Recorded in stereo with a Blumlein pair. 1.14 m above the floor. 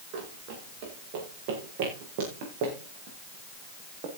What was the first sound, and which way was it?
Running footsteps, 45° right.